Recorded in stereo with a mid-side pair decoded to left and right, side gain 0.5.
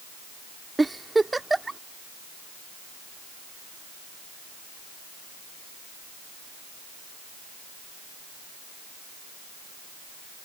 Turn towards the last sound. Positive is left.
turn(degrees=-15)